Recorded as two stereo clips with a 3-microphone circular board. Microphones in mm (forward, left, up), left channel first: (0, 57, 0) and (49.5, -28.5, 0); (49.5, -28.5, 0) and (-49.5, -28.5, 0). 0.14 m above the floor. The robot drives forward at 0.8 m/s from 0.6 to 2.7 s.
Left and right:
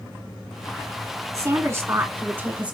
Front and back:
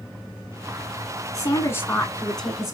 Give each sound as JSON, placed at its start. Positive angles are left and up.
{"t": 1.3, "sound": "a woman speaking", "azimuth_deg": -25, "distance_m": 1.6}